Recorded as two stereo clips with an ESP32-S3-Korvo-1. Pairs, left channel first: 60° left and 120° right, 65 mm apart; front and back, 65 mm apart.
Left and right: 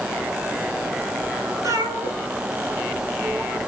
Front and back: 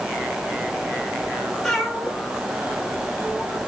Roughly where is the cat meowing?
Right.